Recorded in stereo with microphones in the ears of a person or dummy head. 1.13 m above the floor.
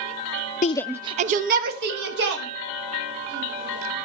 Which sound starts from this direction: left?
A shout, at 0.6 s.